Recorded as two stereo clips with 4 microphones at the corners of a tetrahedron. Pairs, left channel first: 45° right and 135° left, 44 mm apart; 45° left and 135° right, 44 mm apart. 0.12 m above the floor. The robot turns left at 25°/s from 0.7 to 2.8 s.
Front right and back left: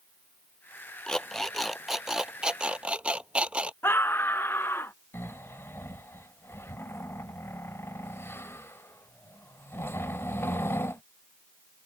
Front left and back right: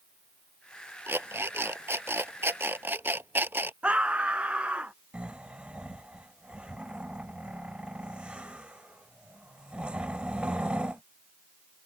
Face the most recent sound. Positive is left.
turn(degrees=-70)